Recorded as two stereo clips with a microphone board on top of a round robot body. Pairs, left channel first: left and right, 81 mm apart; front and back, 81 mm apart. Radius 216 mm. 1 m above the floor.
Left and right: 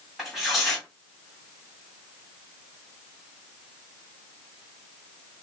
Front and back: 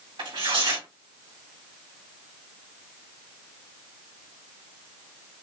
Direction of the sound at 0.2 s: Straight behind.